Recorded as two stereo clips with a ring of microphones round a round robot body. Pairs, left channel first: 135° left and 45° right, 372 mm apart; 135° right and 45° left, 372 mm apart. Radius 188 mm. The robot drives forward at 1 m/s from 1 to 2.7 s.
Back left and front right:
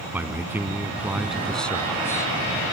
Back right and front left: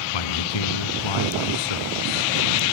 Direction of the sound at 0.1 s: 130° right.